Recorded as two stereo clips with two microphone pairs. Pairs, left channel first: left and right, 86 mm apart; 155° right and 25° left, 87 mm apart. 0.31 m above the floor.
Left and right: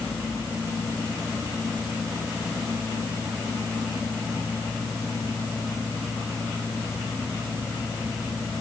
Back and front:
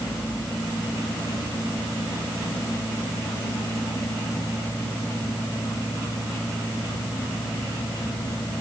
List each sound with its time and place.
Only background noise.